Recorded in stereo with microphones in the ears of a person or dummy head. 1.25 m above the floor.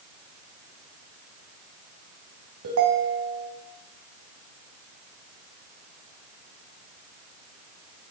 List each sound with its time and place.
2.6 s a ringtone: 75° right (ahead or behind), 3 m